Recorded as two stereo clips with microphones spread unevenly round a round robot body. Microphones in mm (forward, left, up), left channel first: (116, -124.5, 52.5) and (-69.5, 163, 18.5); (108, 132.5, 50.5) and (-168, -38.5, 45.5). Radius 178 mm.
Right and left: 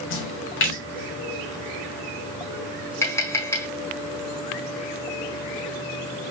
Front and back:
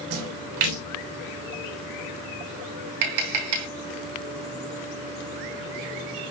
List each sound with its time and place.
0.1 s a splash: 115° right, 3.5 m
3.0 s tapping: 140° right, 5 m